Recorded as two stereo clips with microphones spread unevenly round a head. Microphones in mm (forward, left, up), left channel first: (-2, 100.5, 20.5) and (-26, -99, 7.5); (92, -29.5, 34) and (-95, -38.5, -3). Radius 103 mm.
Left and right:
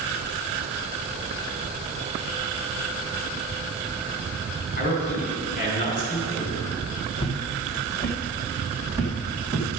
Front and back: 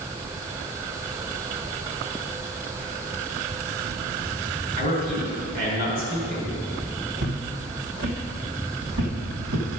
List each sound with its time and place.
4.8 s a man speaking: 135° left, 4 m
7.2 s footsteps: 140° left, 2.0 m; by 9.7 s straight behind, 2.5 m